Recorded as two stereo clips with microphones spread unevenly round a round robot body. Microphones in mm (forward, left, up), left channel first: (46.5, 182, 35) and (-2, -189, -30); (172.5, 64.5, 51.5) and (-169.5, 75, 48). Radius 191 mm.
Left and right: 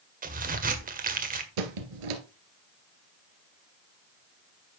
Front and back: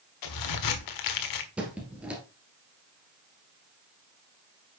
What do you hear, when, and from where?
0.2 s a crack: 35° right, 1.5 m
1.6 s a squeak: 95° right, 1.6 m